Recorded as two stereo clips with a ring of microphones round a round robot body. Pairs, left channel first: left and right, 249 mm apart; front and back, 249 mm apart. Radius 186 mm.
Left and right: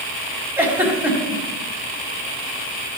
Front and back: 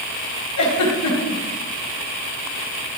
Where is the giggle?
10° right, 4 m.